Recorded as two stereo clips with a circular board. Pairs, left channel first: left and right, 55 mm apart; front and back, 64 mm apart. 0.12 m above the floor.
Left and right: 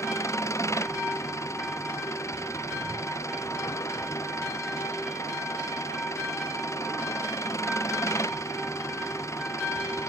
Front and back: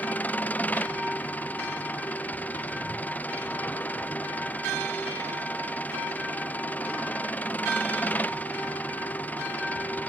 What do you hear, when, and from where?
0.0 s an engine running: 65° left